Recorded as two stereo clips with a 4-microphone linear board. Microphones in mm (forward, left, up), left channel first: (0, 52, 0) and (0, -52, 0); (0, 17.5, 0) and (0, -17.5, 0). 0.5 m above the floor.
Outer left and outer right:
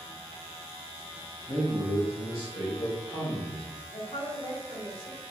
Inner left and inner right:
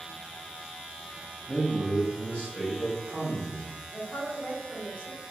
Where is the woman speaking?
70° left (ahead or behind), 2.5 m.